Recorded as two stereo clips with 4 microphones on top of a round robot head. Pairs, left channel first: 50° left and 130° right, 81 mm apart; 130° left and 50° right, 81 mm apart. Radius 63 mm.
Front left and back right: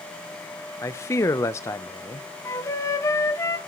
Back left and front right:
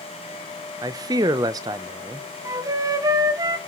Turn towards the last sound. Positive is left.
turn(degrees=-5)